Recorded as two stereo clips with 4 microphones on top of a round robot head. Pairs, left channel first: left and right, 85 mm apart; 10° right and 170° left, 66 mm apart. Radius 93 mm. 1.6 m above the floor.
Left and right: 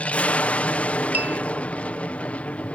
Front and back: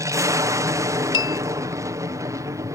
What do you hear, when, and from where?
0.0 s an aircraft: 160° left
1.1 s a bell: 15° right